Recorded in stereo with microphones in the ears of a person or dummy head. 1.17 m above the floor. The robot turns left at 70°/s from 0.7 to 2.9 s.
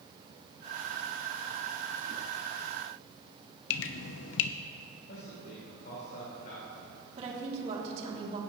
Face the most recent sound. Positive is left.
turn(degrees=-40)  # may be behind; listen again after turning